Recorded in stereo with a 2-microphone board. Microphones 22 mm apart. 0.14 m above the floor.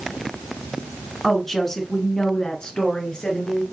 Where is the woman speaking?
5° left (ahead or behind), 1.4 m; by 3.6 s 55° left (ahead or behind), 2.0 m.